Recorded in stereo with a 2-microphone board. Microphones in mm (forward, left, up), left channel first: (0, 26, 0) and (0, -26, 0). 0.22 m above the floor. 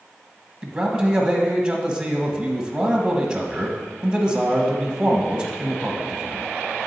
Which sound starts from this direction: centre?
A man speaking, at 0.6 s.